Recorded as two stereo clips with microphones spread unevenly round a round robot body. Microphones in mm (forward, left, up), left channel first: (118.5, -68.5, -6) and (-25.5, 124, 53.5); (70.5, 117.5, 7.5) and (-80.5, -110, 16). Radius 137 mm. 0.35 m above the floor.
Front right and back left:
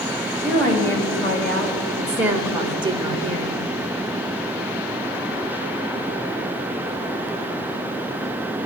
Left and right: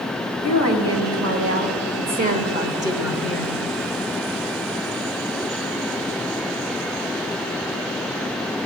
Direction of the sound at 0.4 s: 110° right.